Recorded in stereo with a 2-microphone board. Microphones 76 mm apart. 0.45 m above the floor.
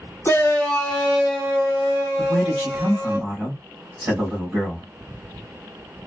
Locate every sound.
0.2 s a shout: 30° left (ahead or behind), 1.0 m; by 3.2 s 25° right (ahead or behind), 3 m
2.2 s a man speaking: 20° right (ahead or behind), 2.5 m